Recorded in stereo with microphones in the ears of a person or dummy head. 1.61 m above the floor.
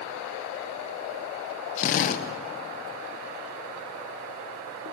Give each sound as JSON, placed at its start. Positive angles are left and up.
{"t": 1.8, "sound": "a drill", "side_deg": 45, "distance_m": 1.5}